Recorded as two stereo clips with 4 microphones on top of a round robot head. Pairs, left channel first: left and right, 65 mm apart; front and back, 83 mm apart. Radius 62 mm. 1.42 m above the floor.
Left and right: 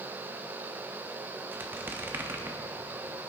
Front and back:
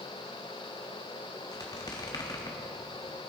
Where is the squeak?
50° right, 1.0 m.